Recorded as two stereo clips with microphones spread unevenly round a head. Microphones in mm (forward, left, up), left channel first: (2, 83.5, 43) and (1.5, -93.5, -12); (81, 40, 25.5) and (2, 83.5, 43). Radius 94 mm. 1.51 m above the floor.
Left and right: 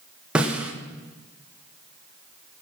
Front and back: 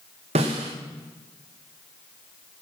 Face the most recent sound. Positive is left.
turn(degrees=-175)